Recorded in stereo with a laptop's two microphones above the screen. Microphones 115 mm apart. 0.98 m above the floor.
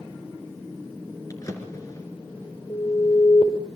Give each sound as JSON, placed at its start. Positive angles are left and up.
{"t": 1.3, "sound": "a drawer", "side_deg": 30, "distance_m": 3.0}
{"t": 2.7, "sound": "an alarm", "side_deg": 65, "distance_m": 4.5}